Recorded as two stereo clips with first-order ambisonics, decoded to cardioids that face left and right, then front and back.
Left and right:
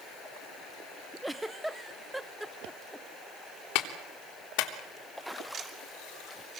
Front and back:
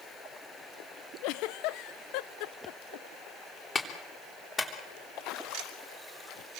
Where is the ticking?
150° right, 2.5 m.